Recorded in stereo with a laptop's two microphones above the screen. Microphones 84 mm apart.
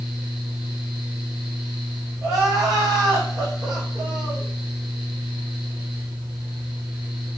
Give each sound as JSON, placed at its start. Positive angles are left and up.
{"t": 0.0, "sound": "a fan", "side_deg": -10, "distance_m": 1.2}
{"t": 2.2, "sound": "crying", "side_deg": -5, "distance_m": 2.5}